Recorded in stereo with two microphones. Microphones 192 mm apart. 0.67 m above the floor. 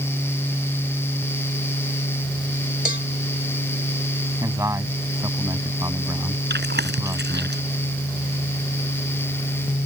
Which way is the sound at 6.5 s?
75° right (ahead or behind).